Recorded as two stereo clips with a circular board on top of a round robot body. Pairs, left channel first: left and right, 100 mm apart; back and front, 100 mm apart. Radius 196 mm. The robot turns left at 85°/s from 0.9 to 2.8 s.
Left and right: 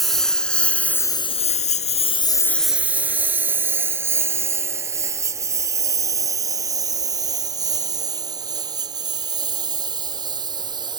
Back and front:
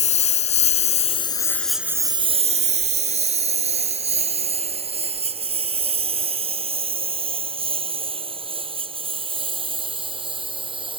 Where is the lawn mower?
Straight behind; by 11.0 s 40° right.